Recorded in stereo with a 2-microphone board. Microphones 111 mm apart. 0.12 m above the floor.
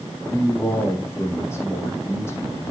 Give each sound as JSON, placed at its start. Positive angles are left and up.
{"t": 0.3, "sound": "a man speaking", "side_deg": 25, "distance_m": 5.0}